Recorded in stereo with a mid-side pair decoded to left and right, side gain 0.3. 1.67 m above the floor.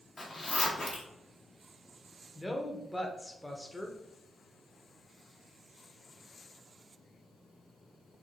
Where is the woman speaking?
15° left, 1.1 m.